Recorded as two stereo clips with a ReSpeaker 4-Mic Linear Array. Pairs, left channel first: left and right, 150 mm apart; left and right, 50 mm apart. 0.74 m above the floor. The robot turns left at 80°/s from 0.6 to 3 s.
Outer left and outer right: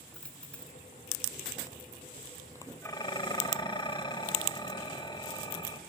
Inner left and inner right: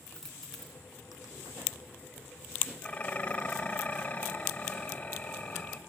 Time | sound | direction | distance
0.1 | a dropped coin | 5° left (ahead or behind) | 2.5 m
2.8 | dishes clattering | 15° left (ahead or behind) | 2.5 m